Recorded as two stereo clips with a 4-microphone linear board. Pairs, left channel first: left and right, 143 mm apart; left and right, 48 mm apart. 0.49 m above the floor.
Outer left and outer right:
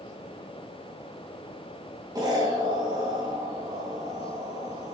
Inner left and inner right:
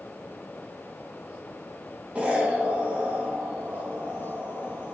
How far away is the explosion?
About 3 m.